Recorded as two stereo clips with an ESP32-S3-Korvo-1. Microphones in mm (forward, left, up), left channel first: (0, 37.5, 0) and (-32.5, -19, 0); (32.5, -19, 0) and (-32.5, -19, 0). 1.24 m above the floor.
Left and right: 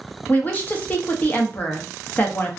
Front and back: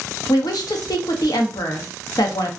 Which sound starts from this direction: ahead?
A woman speaking, at 0.3 s.